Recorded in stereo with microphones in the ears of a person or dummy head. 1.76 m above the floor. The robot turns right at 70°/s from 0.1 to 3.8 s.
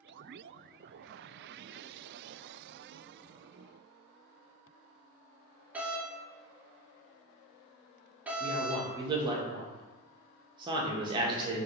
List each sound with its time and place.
5.7 s a doorbell: 15° right (ahead or behind), 0.7 m
8.4 s a man speaking: 30° right (ahead or behind), 0.6 m